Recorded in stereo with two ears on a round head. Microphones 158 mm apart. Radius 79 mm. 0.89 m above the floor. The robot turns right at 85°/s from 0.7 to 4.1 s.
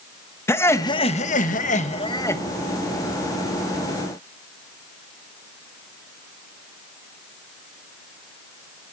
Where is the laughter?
20° left, 0.9 m; by 2.4 s 165° left, 0.9 m.